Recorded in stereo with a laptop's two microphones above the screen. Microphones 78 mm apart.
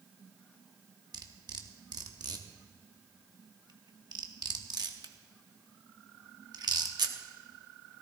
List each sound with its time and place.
1.1 s cutlery clinking: 60° right (ahead or behind), 1.0 m